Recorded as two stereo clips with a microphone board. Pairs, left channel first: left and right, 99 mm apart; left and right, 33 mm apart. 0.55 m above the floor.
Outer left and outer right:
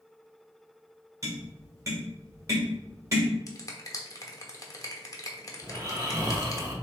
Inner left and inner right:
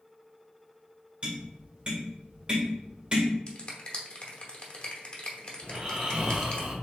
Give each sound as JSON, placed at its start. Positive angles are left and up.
{"t": 1.2, "sound": "tapping", "side_deg": -30, "distance_m": 1.7}
{"t": 3.5, "sound": "a finger snap", "side_deg": 35, "distance_m": 1.0}
{"t": 5.6, "sound": "snoring", "side_deg": -30, "distance_m": 0.9}